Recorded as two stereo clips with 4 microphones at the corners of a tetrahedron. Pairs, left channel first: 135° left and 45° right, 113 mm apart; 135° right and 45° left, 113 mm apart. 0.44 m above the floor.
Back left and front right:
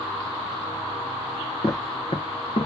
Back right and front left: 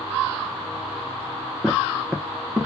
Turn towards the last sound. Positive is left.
turn(degrees=125)